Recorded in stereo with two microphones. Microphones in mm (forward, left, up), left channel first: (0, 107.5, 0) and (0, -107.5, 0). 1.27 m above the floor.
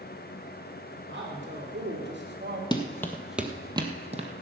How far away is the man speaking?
About 3.5 m.